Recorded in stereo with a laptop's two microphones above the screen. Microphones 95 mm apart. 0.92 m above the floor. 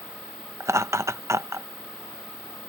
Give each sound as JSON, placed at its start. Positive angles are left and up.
{"t": 0.6, "sound": "laughter", "side_deg": -30}